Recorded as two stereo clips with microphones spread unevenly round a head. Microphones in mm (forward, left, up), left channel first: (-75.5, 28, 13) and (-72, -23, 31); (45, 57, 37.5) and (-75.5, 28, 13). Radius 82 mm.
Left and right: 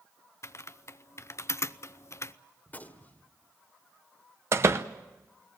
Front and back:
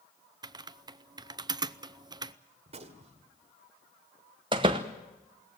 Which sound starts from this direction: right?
A door slam, at 4.5 s.